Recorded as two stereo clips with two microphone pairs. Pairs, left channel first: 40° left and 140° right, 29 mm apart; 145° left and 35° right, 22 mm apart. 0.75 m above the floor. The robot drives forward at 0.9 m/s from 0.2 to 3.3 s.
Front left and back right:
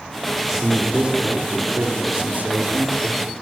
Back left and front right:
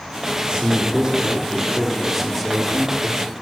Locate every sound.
0.4 s a man speaking: 65° right, 1.8 m; by 3.3 s 140° right, 2.5 m